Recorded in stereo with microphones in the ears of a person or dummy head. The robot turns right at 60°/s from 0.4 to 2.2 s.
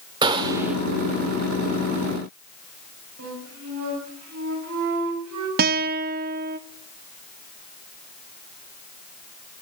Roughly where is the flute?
Right.